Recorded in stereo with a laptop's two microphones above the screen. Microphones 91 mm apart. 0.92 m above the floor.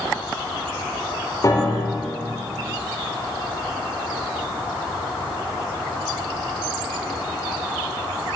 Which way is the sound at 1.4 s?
40° left (ahead or behind).